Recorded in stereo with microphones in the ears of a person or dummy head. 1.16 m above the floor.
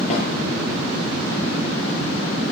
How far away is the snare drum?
About 7 m.